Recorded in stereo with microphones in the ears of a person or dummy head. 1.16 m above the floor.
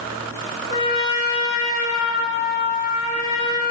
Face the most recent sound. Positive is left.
turn(degrees=25)  # may be behind; listen again after turning